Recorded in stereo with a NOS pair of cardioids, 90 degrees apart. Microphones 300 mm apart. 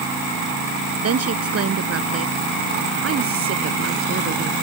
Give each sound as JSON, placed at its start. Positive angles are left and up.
{"t": 1.0, "sound": "a woman speaking", "azimuth_deg": -55}